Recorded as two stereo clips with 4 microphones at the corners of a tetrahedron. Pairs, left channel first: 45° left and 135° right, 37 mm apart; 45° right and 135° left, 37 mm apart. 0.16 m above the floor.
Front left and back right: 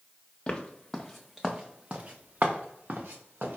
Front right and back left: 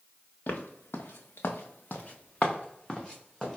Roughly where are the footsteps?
Ahead.